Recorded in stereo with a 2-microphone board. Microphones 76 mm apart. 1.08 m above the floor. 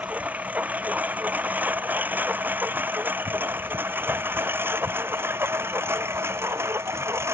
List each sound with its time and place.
0.0 s a lawn mower: 20° right (ahead or behind); by 7.3 s 35° right (ahead or behind)